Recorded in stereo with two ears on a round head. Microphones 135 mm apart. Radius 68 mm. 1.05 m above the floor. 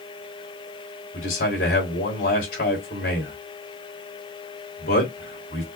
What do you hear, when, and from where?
1.1 s a man speaking: 65° left (ahead or behind), 3.5 m